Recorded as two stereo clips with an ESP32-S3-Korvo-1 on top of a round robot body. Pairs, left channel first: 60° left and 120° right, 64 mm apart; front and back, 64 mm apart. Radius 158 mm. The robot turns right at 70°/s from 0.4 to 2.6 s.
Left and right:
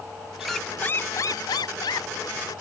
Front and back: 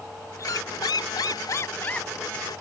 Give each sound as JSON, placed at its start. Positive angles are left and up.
{"t": 0.4, "sound": "a squeak", "azimuth_deg": -35}